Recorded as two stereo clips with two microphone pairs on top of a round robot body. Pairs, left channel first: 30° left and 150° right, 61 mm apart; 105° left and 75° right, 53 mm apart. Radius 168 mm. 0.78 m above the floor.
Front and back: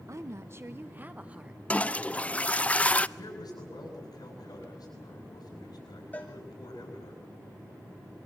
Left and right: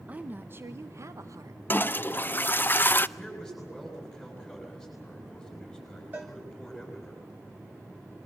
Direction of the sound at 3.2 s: 20° left.